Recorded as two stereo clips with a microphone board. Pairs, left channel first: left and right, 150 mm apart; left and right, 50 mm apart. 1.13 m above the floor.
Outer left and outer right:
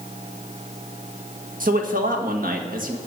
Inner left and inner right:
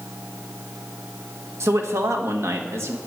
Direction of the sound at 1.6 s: 65° right (ahead or behind).